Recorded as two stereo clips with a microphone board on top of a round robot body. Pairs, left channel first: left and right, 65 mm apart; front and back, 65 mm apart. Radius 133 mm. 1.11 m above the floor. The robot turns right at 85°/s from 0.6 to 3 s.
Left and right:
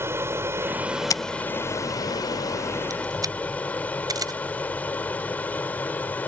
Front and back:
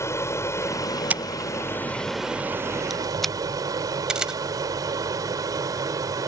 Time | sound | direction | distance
0.0 | an aircraft | 40° right | ?
1.1 | scissors | 110° left | ?
4.1 | a camera shutter | 100° right | ?